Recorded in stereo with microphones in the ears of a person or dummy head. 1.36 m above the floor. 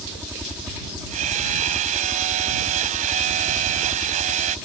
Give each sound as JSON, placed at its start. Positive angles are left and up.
{"t": 0.0, "sound": "a helicopter", "side_deg": -5}
{"t": 1.1, "sound": "hammering", "side_deg": -40}